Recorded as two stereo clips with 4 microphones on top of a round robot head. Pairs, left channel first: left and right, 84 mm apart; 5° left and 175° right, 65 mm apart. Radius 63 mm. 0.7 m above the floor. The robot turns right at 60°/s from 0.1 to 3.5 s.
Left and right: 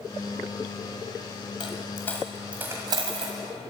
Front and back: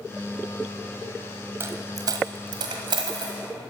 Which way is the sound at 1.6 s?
135° left.